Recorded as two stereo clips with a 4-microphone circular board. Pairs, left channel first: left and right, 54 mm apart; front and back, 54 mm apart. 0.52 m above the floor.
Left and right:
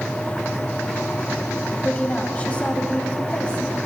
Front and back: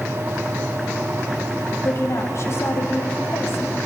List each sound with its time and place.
1.8 s a woman speaking: 25° left, 3 m